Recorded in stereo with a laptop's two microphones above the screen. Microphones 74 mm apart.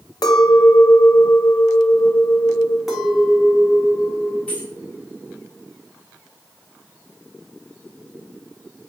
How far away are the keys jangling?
About 1.9 m.